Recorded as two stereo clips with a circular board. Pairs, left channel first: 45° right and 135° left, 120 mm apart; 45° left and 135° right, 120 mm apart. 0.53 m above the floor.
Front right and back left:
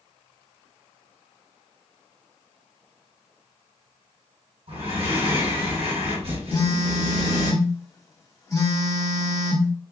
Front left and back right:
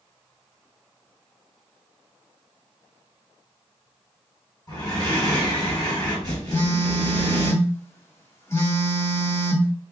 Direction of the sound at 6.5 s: 10° right.